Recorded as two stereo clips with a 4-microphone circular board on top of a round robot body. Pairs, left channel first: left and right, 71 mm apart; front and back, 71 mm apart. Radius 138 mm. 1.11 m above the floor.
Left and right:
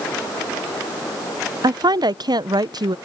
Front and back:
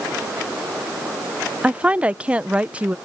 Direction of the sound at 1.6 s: 105° right.